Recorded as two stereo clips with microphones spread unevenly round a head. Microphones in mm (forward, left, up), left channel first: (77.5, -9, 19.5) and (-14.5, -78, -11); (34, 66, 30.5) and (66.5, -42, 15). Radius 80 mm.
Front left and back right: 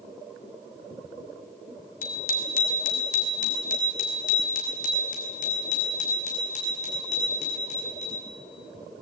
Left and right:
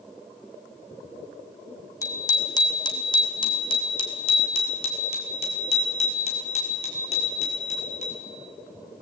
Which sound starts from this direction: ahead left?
A bicycle bell, at 2.0 s.